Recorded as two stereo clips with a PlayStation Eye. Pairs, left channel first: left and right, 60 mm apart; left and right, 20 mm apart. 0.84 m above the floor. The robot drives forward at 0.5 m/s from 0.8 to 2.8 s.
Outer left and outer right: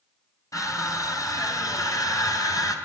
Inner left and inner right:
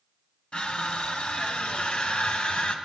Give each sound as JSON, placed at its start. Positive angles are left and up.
{"t": 0.5, "sound": "crushing", "side_deg": 70, "distance_m": 3.5}